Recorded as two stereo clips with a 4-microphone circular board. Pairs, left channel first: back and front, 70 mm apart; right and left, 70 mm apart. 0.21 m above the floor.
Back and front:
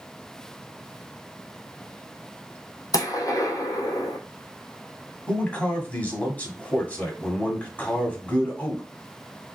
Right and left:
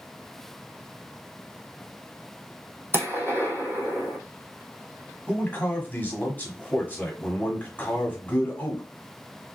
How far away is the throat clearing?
No throat clearing in this recording.